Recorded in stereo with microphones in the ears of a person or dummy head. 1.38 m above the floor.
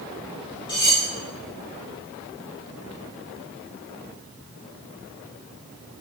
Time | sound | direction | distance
0.7 | cutlery clinking | 25° left (ahead or behind) | 3.5 m